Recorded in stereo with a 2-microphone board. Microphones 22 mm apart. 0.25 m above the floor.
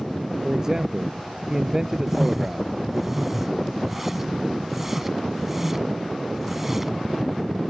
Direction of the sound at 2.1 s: 10° right (ahead or behind).